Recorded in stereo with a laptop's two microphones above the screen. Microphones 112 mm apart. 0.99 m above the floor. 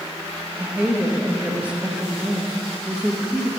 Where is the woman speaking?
10° right (ahead or behind), 0.7 m.